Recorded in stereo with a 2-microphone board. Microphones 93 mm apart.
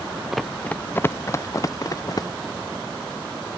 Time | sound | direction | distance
0.3 | running footsteps | centre (ahead or behind) | ?